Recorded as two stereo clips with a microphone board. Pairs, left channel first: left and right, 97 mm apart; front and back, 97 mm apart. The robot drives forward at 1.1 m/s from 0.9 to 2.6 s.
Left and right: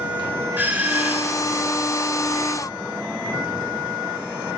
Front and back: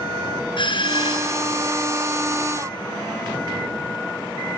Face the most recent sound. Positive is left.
turn(degrees=-30)